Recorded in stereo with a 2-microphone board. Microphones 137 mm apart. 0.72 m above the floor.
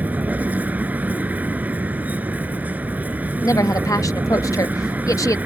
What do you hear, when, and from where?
0.0 s a vehicle: 10° right (ahead or behind)
3.4 s a woman speaking: 25° left (ahead or behind)